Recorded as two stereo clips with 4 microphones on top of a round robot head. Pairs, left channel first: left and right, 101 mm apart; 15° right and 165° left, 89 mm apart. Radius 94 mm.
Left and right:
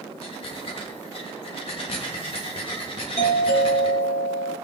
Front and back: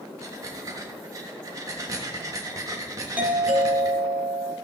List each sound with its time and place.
0.2 s breathing: 115° left, 1.6 m
3.2 s a doorbell: 95° left, 4 m